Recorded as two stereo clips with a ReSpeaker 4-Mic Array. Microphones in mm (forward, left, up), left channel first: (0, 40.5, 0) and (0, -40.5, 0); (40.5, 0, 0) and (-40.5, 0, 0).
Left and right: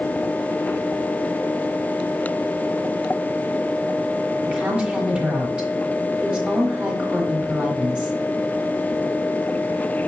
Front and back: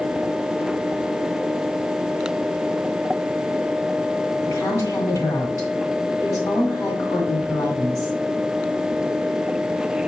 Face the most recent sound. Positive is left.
turn(degrees=-20)